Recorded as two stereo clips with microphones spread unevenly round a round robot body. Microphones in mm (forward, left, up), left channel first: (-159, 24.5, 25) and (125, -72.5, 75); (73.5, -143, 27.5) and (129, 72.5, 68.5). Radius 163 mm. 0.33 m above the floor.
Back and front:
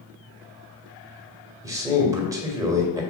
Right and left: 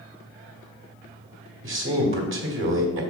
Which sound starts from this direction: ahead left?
A man speaking, at 1.6 s.